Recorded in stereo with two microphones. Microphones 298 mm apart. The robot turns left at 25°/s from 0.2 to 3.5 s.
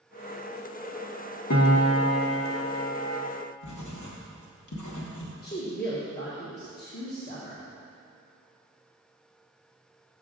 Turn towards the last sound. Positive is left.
turn(degrees=35)  # may be behind; listen again after turning